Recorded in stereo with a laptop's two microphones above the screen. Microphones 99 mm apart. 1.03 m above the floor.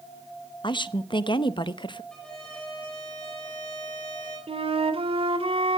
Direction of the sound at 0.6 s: 55° left (ahead or behind).